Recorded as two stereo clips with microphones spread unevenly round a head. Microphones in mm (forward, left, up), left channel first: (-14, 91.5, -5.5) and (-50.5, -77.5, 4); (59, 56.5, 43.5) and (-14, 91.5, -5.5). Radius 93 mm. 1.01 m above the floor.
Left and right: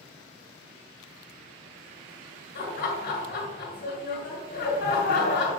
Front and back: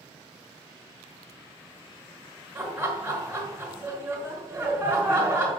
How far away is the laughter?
About 1.9 m.